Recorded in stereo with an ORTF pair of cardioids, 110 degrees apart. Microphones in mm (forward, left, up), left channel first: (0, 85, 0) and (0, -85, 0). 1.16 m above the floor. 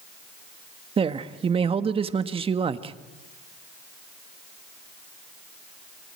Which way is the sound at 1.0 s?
35° right.